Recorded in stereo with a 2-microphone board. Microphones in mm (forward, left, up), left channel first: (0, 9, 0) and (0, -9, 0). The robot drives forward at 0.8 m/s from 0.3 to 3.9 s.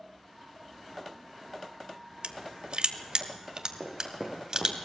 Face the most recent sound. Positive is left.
turn(degrees=0)  # may be behind; listen again after turning